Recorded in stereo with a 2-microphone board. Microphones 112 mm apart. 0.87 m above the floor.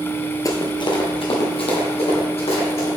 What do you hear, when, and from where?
0.5 s running footsteps: 35° left (ahead or behind), 1.0 m; by 2.9 s 70° left (ahead or behind), 3 m